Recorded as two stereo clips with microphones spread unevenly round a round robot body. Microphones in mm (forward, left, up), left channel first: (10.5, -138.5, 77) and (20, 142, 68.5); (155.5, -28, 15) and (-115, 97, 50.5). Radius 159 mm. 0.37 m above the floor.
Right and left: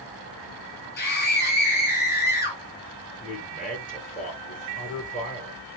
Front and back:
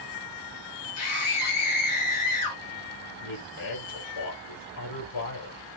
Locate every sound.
1.0 s a scream: 35° right, 5.5 m
3.2 s a man speaking: 30° right, 7 m